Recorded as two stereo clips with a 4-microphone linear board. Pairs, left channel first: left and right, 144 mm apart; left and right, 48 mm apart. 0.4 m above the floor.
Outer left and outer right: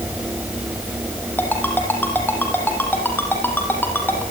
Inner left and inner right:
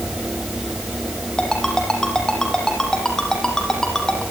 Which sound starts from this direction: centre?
A ringtone, at 1.4 s.